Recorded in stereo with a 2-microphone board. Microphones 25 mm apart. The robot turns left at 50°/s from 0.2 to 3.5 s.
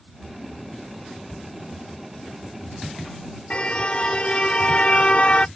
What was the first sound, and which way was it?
A cupboard door, 40° left (ahead or behind).